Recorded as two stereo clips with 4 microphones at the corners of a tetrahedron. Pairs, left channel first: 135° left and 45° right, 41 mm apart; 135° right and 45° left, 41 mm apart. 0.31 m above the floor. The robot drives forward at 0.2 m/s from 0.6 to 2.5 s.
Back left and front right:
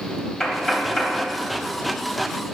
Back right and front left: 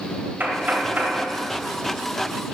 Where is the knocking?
70° left, 1.1 m; by 1.2 s 80° left, 1.1 m.